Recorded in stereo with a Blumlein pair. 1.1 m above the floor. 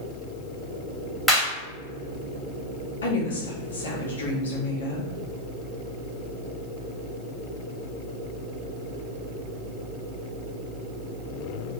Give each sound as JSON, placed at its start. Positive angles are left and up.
{"t": 1.3, "sound": "a clap", "azimuth_deg": 0, "distance_m": 1.9}
{"t": 3.0, "sound": "a woman speaking", "azimuth_deg": 65, "distance_m": 1.4}